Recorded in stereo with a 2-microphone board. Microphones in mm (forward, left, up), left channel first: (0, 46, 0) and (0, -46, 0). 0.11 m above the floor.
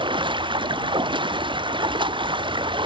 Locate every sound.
0.0 s running water: 60° right (ahead or behind)